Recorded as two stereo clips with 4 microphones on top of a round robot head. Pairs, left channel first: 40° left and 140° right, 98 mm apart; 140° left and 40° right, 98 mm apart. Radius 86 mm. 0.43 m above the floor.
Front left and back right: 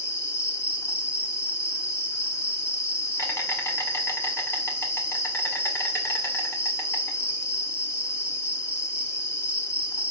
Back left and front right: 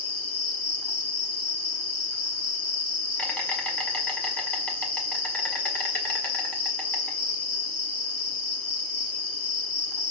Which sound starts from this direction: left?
An insect, at 0.0 s.